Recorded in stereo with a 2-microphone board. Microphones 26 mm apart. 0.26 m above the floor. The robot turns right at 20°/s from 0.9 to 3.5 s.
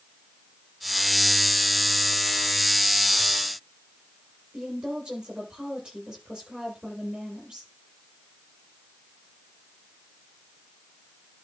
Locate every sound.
4.5 s a woman speaking: 25° right (ahead or behind), 8 m